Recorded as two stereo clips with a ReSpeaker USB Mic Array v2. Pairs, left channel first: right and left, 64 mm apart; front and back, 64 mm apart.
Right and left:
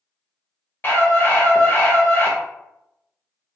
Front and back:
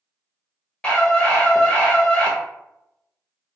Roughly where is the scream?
Ahead right.